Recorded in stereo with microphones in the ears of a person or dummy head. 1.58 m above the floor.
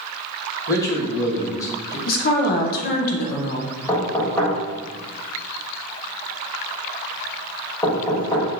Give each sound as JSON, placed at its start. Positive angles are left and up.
{"t": 0.7, "sound": "a man speaking", "side_deg": 15, "distance_m": 1.2}
{"t": 2.1, "sound": "a woman speaking", "side_deg": 50, "distance_m": 0.6}
{"t": 3.9, "sound": "knocking", "side_deg": 10, "distance_m": 1.2}